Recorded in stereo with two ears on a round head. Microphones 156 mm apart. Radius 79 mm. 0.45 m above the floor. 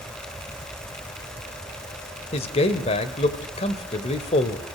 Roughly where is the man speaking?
Left.